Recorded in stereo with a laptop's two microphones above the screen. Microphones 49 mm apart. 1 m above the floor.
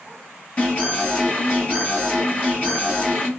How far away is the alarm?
About 1.6 m.